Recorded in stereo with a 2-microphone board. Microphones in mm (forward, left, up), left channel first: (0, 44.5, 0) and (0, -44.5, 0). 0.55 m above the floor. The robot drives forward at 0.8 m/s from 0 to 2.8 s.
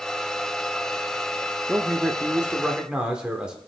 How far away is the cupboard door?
I don't hear a cupboard door.